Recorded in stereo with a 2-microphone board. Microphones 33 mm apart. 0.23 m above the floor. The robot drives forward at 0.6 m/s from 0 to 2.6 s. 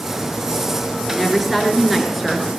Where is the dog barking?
No dog barking in this recording.